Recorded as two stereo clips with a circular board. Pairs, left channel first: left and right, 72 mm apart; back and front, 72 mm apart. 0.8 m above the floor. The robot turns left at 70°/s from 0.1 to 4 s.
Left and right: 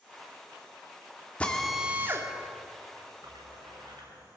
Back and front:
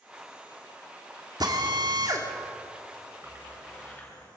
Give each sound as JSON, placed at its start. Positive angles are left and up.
{"t": 1.4, "sound": "a drill", "azimuth_deg": 20, "distance_m": 2.5}
{"t": 3.2, "sound": "a splash", "azimuth_deg": -60, "distance_m": 8.5}